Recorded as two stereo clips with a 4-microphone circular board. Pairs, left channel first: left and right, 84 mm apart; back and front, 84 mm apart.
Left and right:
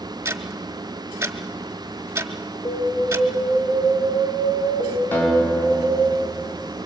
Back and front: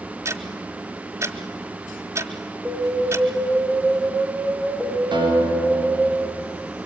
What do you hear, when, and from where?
0.2 s ticking: 40° right, 1.4 m
2.6 s an alarm: 80° left, 8 m
5.1 s a guitar: 20° left, 6.5 m